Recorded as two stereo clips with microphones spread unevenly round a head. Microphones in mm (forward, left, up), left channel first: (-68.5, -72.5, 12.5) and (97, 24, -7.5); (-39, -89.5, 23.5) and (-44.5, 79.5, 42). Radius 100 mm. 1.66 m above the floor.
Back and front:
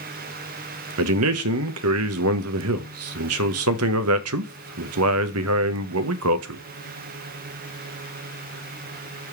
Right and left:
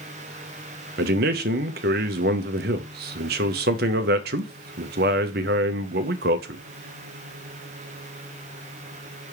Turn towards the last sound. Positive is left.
turn(degrees=50)